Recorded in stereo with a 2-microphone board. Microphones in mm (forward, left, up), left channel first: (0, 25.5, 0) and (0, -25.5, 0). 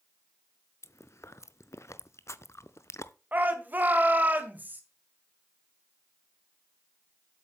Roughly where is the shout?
Right.